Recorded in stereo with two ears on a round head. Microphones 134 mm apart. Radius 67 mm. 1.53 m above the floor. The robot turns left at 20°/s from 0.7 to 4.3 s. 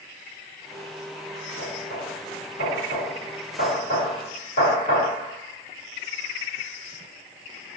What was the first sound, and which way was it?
Knocking, 65° left (ahead or behind).